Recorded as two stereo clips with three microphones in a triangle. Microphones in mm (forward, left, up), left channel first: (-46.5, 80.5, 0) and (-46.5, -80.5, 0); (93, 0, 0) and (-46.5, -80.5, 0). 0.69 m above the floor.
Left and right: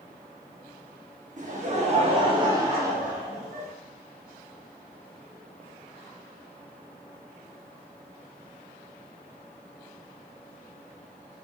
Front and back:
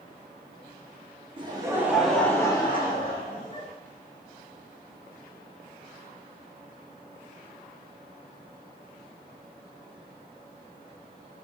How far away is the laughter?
About 1.2 m.